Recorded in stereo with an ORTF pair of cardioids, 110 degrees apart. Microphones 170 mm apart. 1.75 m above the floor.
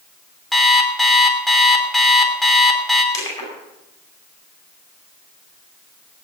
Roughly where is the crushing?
Ahead.